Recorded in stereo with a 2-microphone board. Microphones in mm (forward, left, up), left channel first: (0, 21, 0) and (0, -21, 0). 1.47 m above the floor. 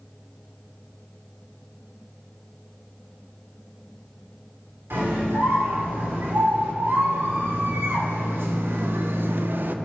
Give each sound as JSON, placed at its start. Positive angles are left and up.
{"t": 4.9, "sound": "a scream", "side_deg": -80, "distance_m": 3.5}